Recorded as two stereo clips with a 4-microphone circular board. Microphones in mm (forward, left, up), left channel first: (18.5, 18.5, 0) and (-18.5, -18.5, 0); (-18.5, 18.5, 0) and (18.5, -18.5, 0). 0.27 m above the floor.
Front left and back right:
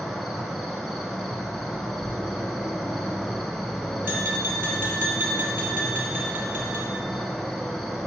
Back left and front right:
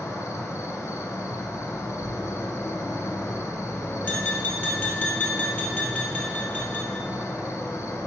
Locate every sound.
0.0 s an insect: 135° left, 0.7 m
2.0 s a thud: straight behind, 0.7 m
4.0 s tapping: straight behind, 2 m